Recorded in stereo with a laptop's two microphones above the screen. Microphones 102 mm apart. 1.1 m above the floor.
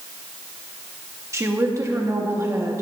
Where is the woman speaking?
30° right (ahead or behind), 1.9 m.